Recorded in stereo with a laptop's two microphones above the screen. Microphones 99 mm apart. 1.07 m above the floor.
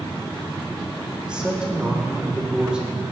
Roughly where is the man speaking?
Centre.